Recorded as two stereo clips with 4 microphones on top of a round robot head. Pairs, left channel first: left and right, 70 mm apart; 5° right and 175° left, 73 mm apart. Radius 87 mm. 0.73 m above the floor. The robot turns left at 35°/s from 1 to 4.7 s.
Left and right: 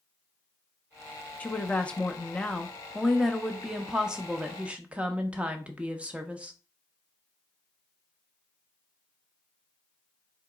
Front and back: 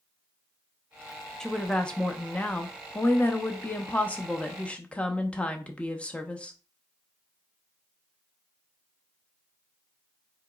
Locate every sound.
1.4 s a woman speaking: 65° left, 0.6 m; by 6.5 s 50° right, 0.6 m